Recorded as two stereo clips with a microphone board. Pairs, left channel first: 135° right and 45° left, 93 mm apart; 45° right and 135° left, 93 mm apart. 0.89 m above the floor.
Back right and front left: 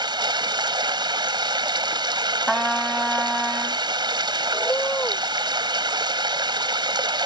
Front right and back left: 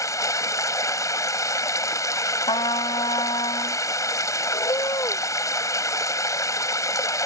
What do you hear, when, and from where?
0.0 s running water: 10° left
2.5 s a trumpet: 45° right
4.5 s a bird: 70° right